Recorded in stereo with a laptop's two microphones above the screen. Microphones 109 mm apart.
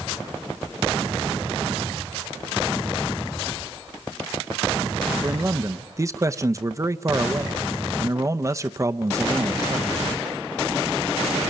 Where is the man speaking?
30° right (ahead or behind), 0.6 m.